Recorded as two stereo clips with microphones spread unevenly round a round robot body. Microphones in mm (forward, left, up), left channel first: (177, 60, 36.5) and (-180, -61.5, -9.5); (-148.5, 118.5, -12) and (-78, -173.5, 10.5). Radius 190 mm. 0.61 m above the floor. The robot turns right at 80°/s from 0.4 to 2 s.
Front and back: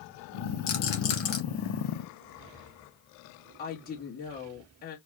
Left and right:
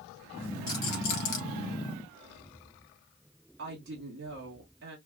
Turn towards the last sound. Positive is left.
turn(degrees=-45)